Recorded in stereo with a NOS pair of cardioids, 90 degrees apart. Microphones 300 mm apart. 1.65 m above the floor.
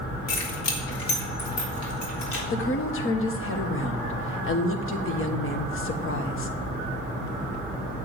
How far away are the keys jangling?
About 2.5 m.